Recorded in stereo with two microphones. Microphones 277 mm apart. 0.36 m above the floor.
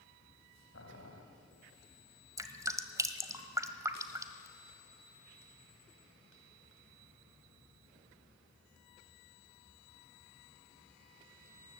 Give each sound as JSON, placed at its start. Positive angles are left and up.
{"t": 0.7, "sound": "boiling", "side_deg": 60, "distance_m": 2.0}
{"t": 2.4, "sound": "dripping", "side_deg": -10, "distance_m": 1.2}